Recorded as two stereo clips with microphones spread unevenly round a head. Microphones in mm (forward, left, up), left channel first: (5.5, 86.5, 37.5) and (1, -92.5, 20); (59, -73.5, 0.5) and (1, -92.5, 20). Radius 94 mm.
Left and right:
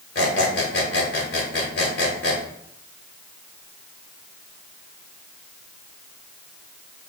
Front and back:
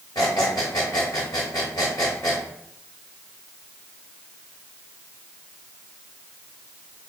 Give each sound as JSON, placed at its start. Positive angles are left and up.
{"t": 0.1, "sound": "a squeak", "azimuth_deg": 75, "distance_m": 1.1}